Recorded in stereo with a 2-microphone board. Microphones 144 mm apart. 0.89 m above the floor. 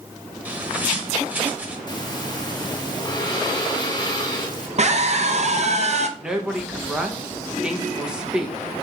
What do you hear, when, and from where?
0.5 s a bird: 10° right (ahead or behind), 1.1 m
1.9 s breathing: 30° left (ahead or behind), 0.9 m
4.8 s a scream: 50° right (ahead or behind), 0.5 m
6.2 s a woman speaking: 5° right (ahead or behind), 0.8 m